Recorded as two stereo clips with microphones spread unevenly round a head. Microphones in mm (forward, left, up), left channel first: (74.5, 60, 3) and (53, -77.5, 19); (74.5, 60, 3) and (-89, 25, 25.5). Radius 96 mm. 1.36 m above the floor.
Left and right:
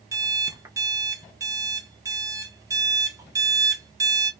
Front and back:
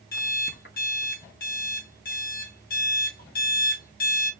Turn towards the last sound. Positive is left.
turn(degrees=-35)